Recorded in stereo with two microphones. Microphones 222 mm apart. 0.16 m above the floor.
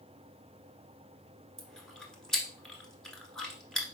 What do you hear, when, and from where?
1.6 s chewing: centre (ahead or behind), 1.1 m